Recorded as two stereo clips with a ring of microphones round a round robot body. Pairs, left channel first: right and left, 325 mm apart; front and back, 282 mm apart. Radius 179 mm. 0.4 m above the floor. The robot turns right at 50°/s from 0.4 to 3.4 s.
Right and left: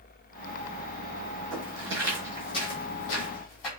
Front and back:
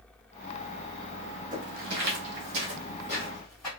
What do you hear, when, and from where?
1.5 s footsteps: 115° left, 1.3 m; by 3.7 s 85° right, 1.1 m